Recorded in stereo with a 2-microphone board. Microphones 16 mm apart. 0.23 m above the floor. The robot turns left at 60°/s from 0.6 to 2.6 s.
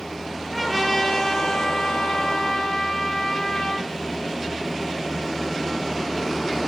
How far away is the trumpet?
About 6 m.